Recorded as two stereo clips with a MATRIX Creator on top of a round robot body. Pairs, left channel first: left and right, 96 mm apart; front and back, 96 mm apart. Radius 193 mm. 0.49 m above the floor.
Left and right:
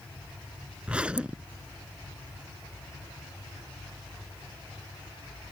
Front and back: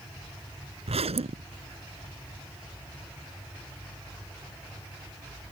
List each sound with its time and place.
0.9 s a zipper: 170° right